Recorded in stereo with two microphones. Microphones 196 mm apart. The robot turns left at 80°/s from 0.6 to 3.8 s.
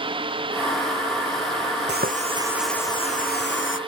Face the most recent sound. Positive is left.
turn(degrees=90)